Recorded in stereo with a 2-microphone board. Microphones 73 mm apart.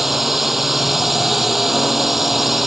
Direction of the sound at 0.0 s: 5° right (ahead or behind).